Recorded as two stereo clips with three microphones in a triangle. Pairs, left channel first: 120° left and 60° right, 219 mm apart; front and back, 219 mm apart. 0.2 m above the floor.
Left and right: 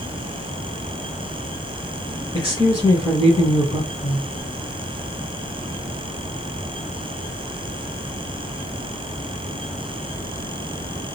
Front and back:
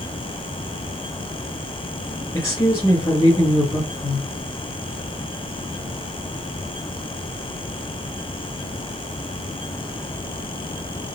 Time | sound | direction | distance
2.3 | a woman speaking | 65° left | 2.0 m